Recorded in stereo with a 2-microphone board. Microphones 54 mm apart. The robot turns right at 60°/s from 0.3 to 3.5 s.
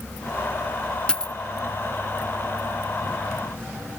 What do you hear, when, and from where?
1.1 s a dropped coin: 15° left (ahead or behind), 0.5 m; by 1.3 s 10° left (ahead or behind), 0.5 m